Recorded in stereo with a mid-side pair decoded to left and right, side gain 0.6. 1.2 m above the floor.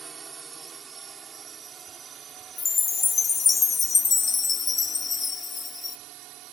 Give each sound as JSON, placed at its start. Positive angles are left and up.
{"t": 0.0, "sound": "a drone", "azimuth_deg": -30}
{"t": 2.6, "sound": "a chime", "azimuth_deg": 25}